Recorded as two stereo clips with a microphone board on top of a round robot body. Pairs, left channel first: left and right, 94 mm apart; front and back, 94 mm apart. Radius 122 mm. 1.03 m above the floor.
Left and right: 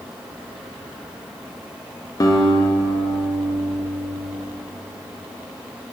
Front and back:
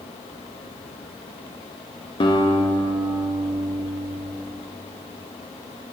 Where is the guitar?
35° left, 0.5 m.